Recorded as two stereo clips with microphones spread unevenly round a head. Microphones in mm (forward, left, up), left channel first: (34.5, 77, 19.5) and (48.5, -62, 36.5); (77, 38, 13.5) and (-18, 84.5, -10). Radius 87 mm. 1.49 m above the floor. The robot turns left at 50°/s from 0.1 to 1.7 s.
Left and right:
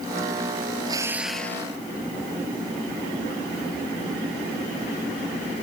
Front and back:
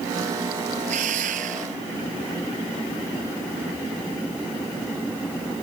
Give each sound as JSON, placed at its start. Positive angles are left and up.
{"t": 0.8, "sound": "a drill", "azimuth_deg": -150}